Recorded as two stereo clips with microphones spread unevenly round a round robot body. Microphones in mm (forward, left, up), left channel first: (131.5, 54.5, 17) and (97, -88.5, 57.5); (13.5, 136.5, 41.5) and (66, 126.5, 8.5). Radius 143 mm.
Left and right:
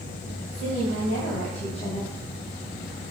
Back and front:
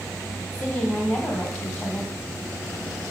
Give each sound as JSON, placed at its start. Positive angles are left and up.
{"t": 0.5, "sound": "a woman speaking", "azimuth_deg": 105, "distance_m": 2.5}